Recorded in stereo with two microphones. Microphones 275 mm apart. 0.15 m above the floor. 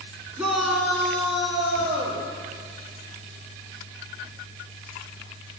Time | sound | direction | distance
0.4 | a shout | 5° right (ahead or behind) | 1.4 m